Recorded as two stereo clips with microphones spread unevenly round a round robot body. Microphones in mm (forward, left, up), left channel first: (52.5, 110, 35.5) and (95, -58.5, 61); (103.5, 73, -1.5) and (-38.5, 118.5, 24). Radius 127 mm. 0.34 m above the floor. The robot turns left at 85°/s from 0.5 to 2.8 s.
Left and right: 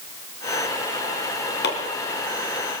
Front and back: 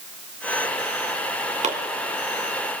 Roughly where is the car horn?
No car horn in this recording.